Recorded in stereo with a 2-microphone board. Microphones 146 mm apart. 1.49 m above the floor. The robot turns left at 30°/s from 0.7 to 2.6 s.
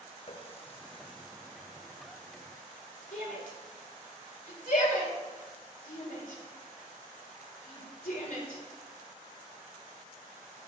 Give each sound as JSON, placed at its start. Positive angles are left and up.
{"t": 0.3, "sound": "a running tap", "side_deg": 40, "distance_m": 0.8}
{"t": 3.1, "sound": "a shout", "side_deg": 65, "distance_m": 4.5}